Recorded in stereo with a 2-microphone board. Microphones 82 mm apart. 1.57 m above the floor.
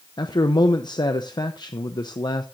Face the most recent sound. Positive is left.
turn(degrees=60)  # may be behind; listen again after turning